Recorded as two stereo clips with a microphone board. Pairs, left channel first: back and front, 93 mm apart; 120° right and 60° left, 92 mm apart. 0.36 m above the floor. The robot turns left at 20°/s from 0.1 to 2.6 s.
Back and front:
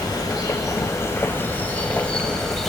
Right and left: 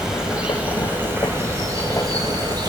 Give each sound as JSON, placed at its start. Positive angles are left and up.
{"t": 0.0, "sound": "an insect", "azimuth_deg": 145, "distance_m": 0.9}